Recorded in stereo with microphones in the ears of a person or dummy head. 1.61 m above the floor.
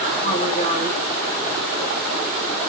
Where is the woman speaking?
40° left (ahead or behind), 8.5 m.